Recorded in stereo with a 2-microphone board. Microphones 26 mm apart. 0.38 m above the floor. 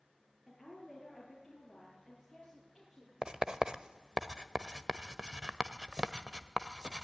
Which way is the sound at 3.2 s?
30° right (ahead or behind).